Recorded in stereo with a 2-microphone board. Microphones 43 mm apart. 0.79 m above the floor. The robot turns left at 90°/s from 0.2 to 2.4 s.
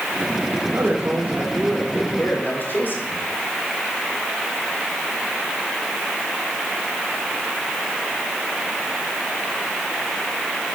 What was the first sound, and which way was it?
A man speaking, 80° right.